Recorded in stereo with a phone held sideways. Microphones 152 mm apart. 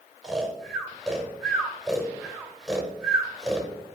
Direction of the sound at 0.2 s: Centre (ahead or behind).